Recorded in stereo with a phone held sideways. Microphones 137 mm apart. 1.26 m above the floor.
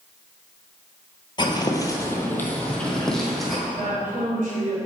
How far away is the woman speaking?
About 3 m.